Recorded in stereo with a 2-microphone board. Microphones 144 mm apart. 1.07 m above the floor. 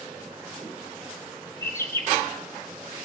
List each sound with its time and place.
1.6 s a bird: 20° left (ahead or behind), 2.5 m